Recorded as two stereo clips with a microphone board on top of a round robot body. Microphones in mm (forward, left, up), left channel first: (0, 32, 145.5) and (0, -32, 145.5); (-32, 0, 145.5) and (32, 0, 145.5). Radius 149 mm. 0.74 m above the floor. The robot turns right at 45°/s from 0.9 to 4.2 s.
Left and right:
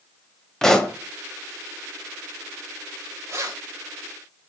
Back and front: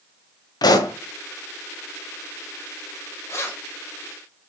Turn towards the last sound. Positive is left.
turn(degrees=-95)